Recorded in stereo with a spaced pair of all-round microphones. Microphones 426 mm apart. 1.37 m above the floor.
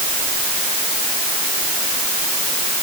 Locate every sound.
Only background noise.